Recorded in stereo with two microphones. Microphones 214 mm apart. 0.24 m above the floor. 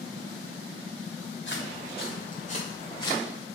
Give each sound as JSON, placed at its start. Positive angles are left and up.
{"t": 1.5, "sound": "footsteps", "side_deg": 55, "distance_m": 3.0}